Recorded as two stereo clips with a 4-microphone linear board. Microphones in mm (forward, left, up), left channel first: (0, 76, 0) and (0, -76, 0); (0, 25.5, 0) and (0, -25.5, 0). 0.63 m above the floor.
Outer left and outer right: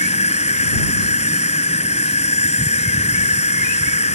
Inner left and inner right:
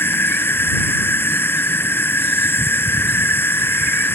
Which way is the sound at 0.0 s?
50° left (ahead or behind).